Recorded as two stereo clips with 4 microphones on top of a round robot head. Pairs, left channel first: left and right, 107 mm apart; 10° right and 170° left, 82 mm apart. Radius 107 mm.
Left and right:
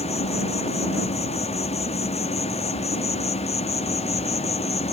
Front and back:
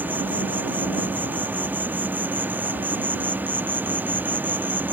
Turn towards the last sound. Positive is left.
turn(degrees=100)